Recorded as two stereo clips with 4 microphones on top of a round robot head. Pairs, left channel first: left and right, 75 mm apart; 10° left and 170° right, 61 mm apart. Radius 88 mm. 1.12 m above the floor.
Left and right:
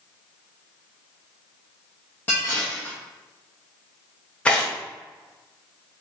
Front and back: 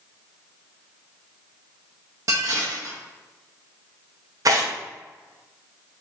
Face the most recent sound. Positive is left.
turn(degrees=165)